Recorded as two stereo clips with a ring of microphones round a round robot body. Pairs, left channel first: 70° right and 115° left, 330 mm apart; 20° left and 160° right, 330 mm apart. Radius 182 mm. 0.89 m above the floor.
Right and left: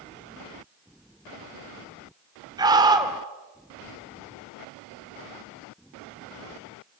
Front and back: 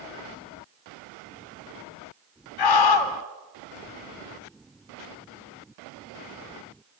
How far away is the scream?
About 3 m.